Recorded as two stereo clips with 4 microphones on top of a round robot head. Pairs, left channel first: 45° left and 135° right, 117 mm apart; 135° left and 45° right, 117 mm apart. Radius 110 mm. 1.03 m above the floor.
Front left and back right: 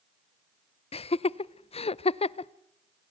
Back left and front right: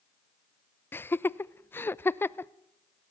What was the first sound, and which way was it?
Laughter, 65° left.